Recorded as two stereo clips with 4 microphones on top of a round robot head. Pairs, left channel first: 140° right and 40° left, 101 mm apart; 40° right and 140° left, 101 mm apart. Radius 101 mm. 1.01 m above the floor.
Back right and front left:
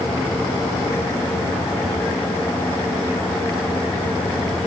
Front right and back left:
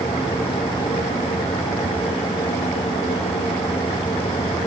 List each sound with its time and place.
Only background noise.